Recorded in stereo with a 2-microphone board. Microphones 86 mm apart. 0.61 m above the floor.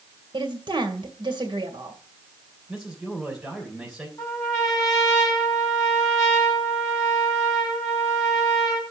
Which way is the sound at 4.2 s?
35° left (ahead or behind).